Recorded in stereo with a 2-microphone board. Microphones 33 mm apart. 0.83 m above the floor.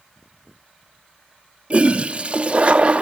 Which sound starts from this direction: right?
A toilet flushing, at 1.7 s.